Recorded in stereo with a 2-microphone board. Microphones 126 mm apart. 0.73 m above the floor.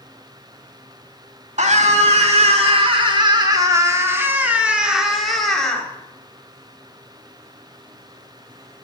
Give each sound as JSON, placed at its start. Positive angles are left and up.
{"t": 1.6, "sound": "a scream", "side_deg": -65, "distance_m": 1.7}